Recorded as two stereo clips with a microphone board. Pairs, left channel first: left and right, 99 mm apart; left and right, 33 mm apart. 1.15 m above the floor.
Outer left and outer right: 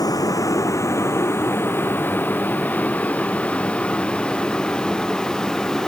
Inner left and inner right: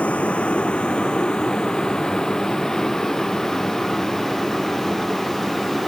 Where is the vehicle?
40° left (ahead or behind); by 5.9 s 5° left (ahead or behind).